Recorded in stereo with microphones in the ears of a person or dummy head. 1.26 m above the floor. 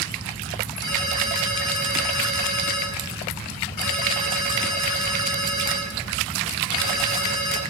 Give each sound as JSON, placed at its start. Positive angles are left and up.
{"t": 0.8, "sound": "a ringtone", "side_deg": 60, "distance_m": 3.5}